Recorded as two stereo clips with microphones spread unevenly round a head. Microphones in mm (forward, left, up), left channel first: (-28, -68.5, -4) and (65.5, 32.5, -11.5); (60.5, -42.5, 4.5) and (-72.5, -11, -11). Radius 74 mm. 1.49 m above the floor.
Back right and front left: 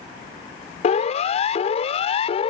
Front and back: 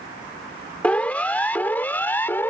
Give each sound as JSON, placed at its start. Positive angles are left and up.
{"t": 0.8, "sound": "a siren", "azimuth_deg": -95}